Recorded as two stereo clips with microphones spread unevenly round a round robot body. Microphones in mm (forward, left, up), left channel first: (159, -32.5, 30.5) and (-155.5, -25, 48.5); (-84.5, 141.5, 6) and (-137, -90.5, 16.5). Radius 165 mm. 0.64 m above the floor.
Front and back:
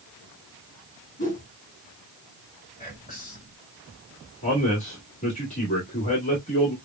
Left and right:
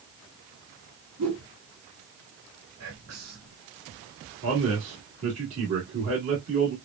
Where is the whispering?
70° right, 2.5 m.